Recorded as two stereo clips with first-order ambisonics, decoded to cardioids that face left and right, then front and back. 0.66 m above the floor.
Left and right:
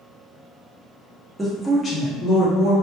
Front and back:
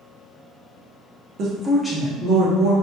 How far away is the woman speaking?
About 0.7 m.